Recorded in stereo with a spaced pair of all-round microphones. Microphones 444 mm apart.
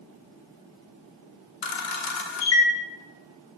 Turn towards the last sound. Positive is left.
turn(degrees=75)  # may be behind; listen again after turning